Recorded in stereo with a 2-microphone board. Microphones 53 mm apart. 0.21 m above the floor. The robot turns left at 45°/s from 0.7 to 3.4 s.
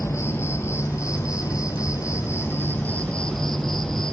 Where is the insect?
125° left, 1.3 m; by 4.1 s 5° left, 1.3 m.